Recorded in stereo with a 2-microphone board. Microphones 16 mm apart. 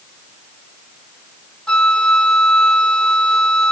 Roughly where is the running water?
I don't hear running water.